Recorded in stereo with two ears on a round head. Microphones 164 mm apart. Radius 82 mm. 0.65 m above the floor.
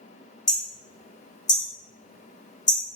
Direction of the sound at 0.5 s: 20° left (ahead or behind).